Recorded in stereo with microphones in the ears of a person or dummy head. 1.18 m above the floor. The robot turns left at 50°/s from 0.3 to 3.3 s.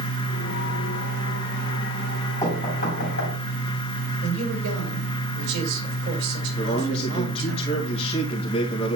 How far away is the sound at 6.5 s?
About 1.7 m.